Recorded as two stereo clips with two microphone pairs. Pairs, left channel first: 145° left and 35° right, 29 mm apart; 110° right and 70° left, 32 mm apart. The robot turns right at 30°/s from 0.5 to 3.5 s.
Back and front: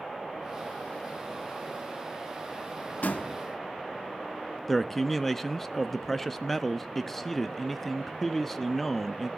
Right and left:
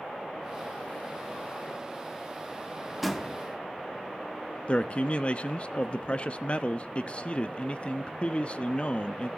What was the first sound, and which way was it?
A door slam, 160° left.